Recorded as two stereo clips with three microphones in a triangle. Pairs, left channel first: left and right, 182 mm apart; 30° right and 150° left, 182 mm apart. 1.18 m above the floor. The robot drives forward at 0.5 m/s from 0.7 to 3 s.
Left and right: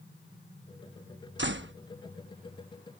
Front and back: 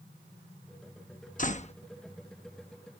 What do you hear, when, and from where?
1.4 s a door slam: 75° right; by 1.7 s 90° right